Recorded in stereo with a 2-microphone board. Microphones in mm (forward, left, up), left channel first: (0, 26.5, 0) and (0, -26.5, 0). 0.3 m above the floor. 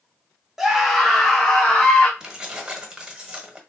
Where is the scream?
5° right (ahead or behind), 1.0 m; by 2.1 s 15° left (ahead or behind), 1.5 m.